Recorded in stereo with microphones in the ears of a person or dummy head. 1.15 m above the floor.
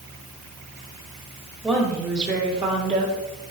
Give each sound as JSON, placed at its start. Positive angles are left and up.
{"t": 1.6, "sound": "a woman speaking", "side_deg": -10, "distance_m": 1.6}